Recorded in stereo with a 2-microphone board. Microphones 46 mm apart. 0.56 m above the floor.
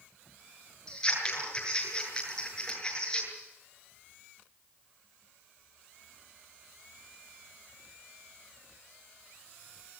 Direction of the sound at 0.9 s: 15° left (ahead or behind).